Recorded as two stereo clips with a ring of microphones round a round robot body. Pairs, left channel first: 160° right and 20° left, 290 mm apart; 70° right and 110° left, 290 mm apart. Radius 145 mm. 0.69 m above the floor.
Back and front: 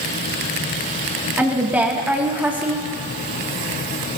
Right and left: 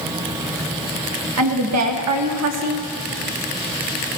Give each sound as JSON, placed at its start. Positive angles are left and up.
{"t": 1.4, "sound": "a woman speaking", "azimuth_deg": 105, "distance_m": 1.4}